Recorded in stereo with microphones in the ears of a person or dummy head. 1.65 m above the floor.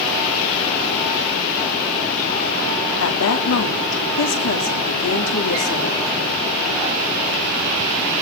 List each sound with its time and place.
3.0 s a woman speaking: 75° left (ahead or behind), 3 m